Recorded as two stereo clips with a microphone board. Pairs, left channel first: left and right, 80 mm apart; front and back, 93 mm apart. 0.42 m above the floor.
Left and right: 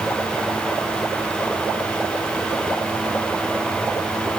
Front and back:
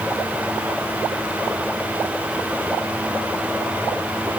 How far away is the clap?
I don't hear a clap.